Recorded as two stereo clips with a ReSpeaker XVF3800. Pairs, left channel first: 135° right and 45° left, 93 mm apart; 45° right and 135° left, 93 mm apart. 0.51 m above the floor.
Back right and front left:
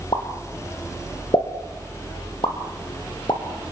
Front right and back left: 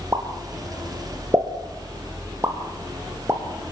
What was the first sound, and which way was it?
A pop, 165° right.